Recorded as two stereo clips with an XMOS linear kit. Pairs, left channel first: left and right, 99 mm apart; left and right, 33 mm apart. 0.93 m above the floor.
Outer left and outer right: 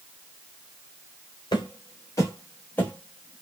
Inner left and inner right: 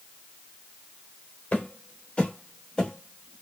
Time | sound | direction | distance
1.5 | footsteps | 45° left (ahead or behind) | 1.3 m